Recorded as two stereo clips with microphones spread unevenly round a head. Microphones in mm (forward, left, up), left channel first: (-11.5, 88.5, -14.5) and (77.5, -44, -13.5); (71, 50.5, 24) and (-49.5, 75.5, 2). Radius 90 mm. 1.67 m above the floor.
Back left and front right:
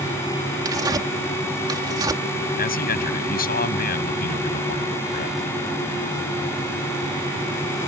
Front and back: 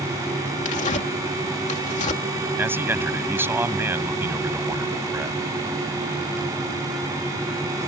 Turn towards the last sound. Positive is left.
turn(degrees=95)